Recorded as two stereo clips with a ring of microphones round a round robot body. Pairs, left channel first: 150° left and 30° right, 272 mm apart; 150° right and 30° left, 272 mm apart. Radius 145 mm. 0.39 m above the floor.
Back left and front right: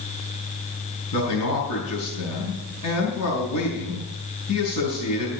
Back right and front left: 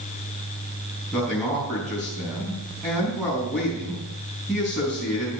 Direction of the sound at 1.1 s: 125° left.